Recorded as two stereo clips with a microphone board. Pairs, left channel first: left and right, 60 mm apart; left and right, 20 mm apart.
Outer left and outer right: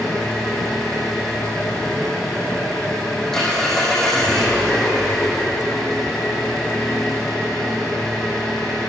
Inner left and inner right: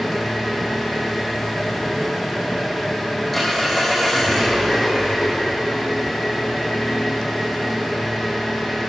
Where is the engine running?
5° left (ahead or behind), 4 m.